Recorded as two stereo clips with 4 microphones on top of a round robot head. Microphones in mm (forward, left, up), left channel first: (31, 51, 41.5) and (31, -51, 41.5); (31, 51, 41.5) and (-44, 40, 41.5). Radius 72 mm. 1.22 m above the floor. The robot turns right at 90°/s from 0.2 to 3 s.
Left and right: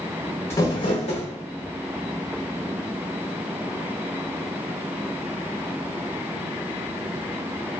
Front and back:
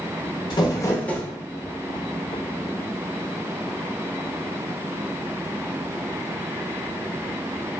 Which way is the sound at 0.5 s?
25° left.